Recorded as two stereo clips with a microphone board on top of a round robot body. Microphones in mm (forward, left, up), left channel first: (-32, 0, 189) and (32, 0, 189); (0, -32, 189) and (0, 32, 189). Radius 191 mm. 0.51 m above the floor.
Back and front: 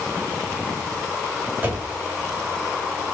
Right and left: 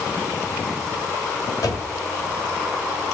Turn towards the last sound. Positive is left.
turn(degrees=-65)